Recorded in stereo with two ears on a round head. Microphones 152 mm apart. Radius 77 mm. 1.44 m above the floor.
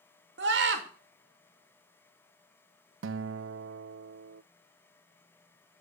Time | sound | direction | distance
0.4 | a scream | 75° right (ahead or behind) | 2.5 m
3.0 | a guitar | 85° right | 0.5 m